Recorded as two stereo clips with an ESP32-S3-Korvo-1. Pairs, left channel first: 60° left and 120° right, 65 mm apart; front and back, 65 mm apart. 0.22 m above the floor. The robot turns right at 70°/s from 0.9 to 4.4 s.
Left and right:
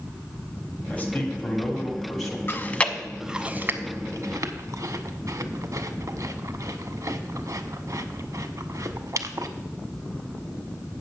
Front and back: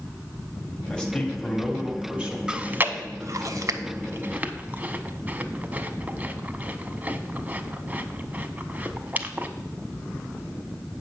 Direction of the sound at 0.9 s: 50° left.